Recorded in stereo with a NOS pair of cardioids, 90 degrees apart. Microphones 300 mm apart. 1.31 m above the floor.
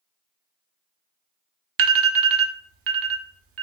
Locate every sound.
1.8 s an alarm: 50° right, 0.5 m